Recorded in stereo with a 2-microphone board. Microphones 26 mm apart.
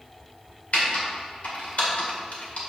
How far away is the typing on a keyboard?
About 1.9 m.